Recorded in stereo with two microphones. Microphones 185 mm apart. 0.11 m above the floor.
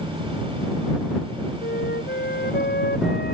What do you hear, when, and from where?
1.6 s a flute: 65° left (ahead or behind)